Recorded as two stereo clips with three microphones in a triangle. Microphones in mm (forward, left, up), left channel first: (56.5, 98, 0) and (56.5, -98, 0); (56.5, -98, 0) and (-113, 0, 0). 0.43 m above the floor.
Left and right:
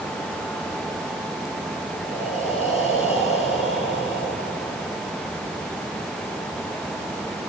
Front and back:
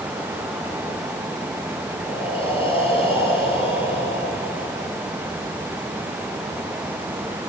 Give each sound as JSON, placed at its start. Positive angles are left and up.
{"t": 2.0, "sound": "breathing", "azimuth_deg": 30, "distance_m": 9.0}